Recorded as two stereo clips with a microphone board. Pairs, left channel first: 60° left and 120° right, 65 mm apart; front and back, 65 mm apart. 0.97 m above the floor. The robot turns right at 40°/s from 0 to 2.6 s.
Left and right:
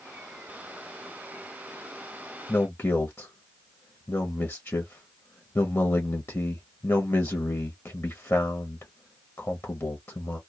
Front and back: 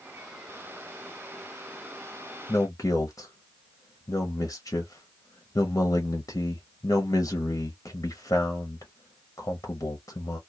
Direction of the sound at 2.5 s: 15° left.